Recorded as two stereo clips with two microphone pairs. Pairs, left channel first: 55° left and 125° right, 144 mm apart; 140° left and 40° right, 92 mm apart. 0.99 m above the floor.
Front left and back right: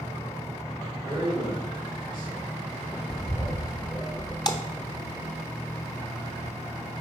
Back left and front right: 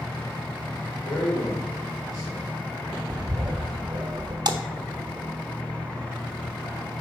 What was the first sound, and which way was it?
A man speaking, 170° left.